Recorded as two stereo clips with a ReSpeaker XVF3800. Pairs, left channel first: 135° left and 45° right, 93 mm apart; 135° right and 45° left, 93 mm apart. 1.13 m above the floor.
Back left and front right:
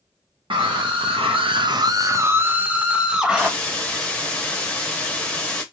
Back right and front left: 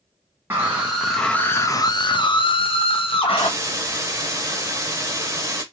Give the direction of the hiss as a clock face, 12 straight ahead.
10 o'clock.